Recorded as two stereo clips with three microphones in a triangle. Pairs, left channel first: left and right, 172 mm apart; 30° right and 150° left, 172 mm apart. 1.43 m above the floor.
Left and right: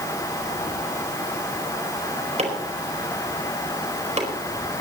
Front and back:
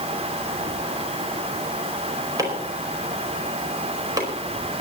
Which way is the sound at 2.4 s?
140° right.